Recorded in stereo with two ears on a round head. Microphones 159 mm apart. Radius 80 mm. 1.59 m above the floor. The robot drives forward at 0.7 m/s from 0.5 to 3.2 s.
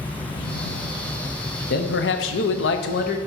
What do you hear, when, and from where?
1.7 s a man speaking: 50° left (ahead or behind), 0.8 m